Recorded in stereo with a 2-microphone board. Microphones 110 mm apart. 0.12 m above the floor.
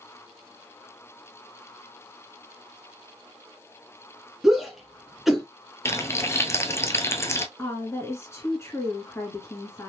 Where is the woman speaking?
25° left (ahead or behind), 1.7 m.